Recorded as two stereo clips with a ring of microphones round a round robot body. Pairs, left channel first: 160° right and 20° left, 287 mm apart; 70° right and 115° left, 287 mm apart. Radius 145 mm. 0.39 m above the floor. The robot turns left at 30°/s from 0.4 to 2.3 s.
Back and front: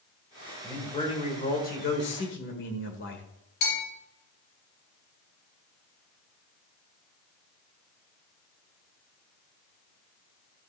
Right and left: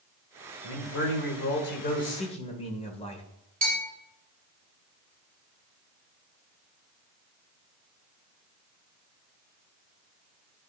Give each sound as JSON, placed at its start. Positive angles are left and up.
{"t": 0.6, "sound": "a man speaking", "azimuth_deg": -80, "distance_m": 1.7}
{"t": 3.6, "sound": "a bell", "azimuth_deg": 180, "distance_m": 4.5}